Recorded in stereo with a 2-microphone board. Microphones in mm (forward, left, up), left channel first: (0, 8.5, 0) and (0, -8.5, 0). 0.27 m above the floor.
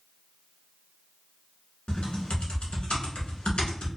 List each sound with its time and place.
1.9 s typing on a keyboard: 80° left, 0.9 m